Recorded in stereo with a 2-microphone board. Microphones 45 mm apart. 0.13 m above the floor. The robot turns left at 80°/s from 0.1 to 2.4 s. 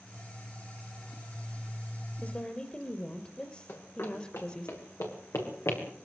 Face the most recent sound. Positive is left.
turn(degrees=80)